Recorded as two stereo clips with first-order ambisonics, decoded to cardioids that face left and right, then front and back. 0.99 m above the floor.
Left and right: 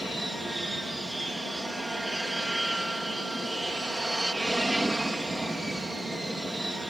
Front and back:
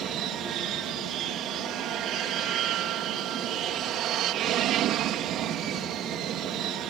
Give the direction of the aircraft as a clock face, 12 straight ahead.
6 o'clock.